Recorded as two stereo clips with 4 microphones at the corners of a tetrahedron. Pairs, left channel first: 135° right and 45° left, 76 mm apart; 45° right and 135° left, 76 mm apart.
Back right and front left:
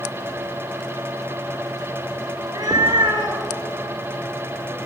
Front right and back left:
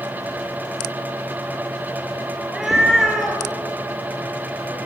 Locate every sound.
2.4 s a cat meowing: 50° left, 1.3 m; by 4.8 s 40° left, 3 m